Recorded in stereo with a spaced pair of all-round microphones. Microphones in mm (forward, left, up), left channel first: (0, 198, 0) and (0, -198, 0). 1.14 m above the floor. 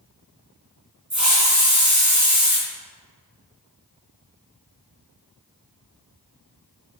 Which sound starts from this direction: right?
A hiss, at 1.1 s.